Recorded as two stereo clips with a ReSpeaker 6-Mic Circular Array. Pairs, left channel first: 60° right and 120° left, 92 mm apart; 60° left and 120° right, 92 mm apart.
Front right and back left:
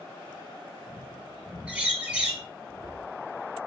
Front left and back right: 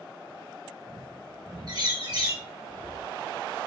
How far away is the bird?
About 3.5 m.